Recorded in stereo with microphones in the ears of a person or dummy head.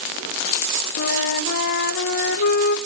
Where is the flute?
55° left (ahead or behind), 1.1 m.